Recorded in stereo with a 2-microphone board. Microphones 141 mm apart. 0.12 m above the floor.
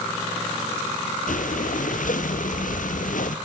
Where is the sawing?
I don't hear sawing.